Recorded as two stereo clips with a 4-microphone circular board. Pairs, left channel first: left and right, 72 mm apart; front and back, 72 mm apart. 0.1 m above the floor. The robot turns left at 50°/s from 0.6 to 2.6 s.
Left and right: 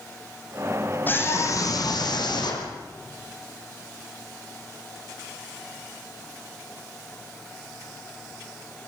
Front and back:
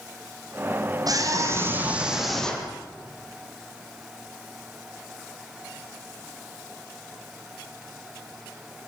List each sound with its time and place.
1.1 s a scream: 150° left, 6.5 m; by 2.7 s 75° left, 6.5 m